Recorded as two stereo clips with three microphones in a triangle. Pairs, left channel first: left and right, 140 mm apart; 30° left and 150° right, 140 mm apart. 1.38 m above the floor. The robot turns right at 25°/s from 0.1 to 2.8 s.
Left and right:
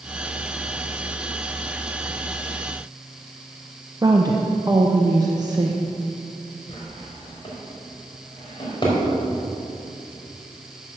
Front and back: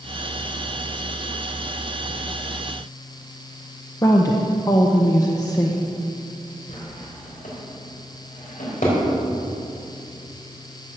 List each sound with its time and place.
4.0 s a woman speaking: 30° right, 0.9 m
6.7 s a drawer: 40° left, 4 m